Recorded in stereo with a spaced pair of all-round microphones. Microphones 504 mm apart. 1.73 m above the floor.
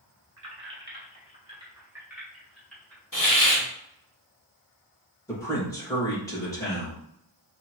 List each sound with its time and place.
0.4 s keys jangling: 30° right (ahead or behind), 1.1 m; by 3.0 s 5° left (ahead or behind), 2 m
3.1 s a hiss: 40° left (ahead or behind), 1.8 m
5.3 s a man speaking: 5° left (ahead or behind), 2.5 m